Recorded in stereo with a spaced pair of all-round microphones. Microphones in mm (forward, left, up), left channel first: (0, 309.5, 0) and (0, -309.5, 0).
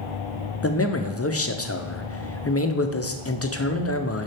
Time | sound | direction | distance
0.6 | a man speaking | 25° left (ahead or behind) | 0.7 m